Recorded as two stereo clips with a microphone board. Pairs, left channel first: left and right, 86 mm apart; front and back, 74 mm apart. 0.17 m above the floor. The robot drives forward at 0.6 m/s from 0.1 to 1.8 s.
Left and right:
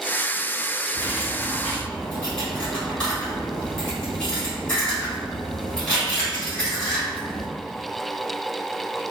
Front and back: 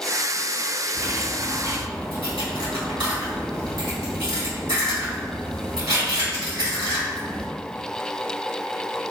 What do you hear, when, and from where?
0.9 s cutlery clinking: 160° left, 1.5 m; by 7.5 s 165° left, 1.9 m